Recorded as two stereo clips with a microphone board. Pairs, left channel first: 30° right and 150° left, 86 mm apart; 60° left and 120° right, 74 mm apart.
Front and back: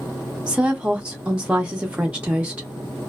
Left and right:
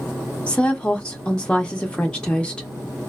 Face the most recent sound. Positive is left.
turn(degrees=105)